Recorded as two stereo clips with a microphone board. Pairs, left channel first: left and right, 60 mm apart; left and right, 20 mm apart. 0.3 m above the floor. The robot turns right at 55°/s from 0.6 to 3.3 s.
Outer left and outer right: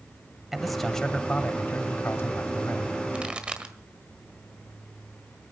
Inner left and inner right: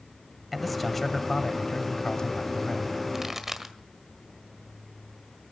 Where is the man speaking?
5° right, 1.2 m; by 2.9 s 120° left, 1.2 m.